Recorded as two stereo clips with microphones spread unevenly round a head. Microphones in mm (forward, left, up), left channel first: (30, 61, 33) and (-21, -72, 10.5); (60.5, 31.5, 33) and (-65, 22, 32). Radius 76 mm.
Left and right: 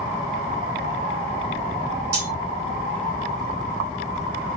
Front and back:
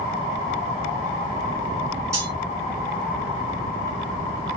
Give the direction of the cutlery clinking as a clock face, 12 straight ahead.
4 o'clock.